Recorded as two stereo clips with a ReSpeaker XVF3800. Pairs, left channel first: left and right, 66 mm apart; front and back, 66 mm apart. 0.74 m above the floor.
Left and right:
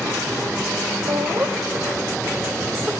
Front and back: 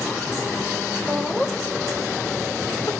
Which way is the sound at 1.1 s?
105° right.